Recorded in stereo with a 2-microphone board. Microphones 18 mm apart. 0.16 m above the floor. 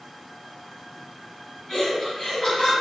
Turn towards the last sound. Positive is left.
turn(degrees=15)  # may be behind; listen again after turning